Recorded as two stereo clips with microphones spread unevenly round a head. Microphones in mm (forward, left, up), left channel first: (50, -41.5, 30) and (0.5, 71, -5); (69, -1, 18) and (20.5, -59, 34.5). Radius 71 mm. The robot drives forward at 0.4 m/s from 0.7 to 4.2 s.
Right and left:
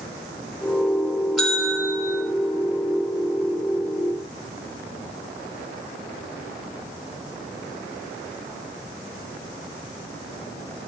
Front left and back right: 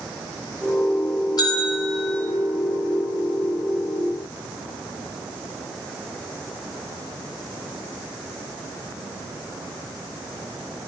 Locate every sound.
1.4 s a bell: 25° left, 3 m